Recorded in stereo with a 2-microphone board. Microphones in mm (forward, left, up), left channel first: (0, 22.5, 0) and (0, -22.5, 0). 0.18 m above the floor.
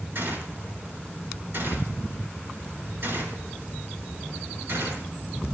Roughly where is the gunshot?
Right.